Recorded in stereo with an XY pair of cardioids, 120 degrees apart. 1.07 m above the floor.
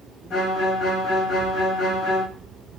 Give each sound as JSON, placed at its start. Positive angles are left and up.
{"t": 0.3, "sound": "a violin", "azimuth_deg": 65, "distance_m": 1.2}